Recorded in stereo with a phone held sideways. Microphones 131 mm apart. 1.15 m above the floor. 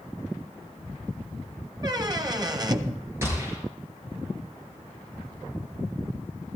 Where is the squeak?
30° right (ahead or behind), 0.7 m.